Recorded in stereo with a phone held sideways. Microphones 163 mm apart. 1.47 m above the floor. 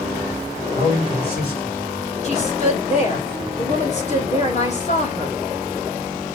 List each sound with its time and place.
0.7 s a man speaking: 75° left (ahead or behind), 5 m; by 2.1 s 80° left, 5.5 m
2.2 s a woman speaking: 45° left (ahead or behind), 2.5 m